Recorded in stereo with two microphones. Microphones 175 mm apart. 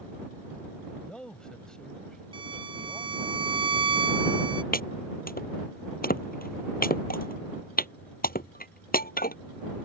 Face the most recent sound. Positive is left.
turn(degrees=60)  # may be behind; listen again after turning